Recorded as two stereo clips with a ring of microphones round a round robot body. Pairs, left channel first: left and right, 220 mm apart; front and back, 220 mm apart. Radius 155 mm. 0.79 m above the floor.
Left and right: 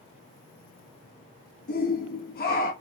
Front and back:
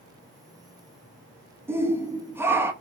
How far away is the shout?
About 1.3 m.